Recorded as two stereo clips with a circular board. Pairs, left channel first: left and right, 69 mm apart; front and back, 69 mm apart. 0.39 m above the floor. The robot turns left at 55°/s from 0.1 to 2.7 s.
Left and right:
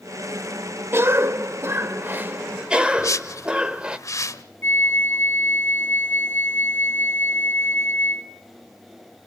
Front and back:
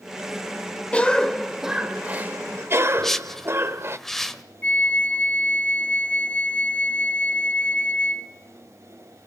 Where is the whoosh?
85° left, 1.2 m.